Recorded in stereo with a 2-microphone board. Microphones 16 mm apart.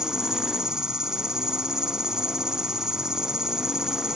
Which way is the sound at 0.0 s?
45° right (ahead or behind).